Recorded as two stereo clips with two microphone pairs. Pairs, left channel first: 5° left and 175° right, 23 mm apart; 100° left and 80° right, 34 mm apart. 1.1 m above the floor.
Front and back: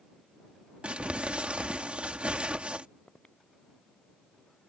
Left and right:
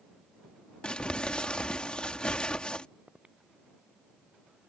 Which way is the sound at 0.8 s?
160° left.